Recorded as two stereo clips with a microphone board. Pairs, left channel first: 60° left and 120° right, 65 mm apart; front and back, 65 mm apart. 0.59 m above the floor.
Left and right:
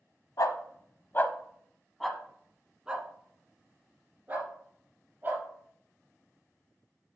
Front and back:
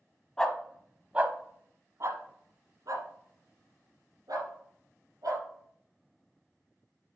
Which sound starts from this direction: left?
A dog barking, at 0.4 s.